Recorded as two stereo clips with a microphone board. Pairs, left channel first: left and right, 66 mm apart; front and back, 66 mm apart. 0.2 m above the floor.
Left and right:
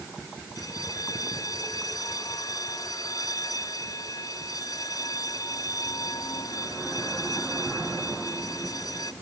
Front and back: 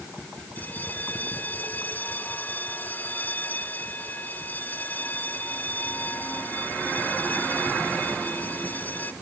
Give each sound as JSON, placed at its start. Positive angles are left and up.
{"t": 0.6, "sound": "a bell", "azimuth_deg": 60}